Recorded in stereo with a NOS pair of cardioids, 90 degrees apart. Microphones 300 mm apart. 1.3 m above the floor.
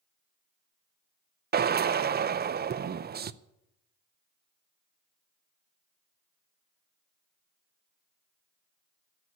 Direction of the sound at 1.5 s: 35° right.